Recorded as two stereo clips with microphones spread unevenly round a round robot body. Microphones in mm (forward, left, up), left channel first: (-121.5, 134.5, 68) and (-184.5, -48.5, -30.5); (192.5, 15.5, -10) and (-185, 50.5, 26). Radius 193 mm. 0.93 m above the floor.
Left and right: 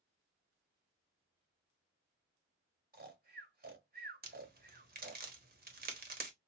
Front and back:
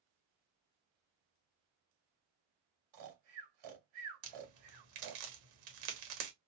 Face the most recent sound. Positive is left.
turn(degrees=-145)